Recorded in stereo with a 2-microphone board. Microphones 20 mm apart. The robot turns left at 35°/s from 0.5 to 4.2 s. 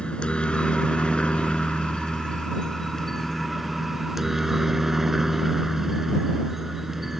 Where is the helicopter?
115° left; by 7.2 s 10° right.